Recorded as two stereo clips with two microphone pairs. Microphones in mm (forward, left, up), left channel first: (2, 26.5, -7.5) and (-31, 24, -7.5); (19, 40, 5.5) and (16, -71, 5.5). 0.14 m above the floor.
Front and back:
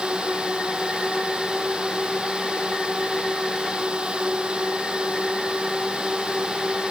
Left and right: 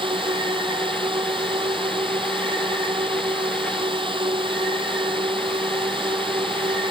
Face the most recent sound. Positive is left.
turn(degrees=-125)